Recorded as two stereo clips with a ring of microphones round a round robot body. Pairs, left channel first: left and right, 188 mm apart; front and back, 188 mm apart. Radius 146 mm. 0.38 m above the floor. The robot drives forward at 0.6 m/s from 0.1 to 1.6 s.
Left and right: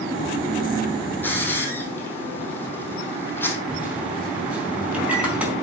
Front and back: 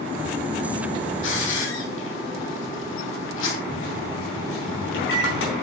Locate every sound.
1.2 s a hiss: 10° left, 3 m
3.7 s a microwave: 5° right, 4.5 m